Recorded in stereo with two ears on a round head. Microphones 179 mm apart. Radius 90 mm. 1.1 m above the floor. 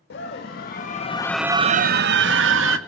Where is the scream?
65° left (ahead or behind), 2 m; by 2.8 s 80° right, 2 m.